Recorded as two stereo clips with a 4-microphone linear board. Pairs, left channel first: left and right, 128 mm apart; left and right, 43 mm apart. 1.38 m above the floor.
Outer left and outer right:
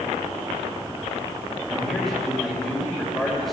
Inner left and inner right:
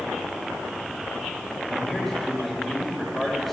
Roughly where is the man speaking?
Centre.